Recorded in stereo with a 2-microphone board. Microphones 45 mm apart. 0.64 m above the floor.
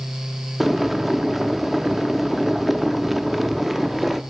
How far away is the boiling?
About 0.7 m.